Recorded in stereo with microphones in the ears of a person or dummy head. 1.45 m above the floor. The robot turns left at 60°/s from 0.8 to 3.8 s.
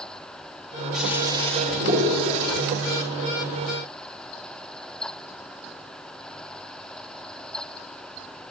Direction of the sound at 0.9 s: Straight ahead.